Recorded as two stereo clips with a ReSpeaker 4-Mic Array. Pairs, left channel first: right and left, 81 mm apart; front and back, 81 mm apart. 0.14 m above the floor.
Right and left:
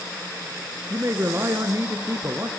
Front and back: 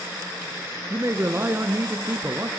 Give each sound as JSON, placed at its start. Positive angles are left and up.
{"t": 0.9, "sound": "a man speaking", "azimuth_deg": 130, "distance_m": 1.7}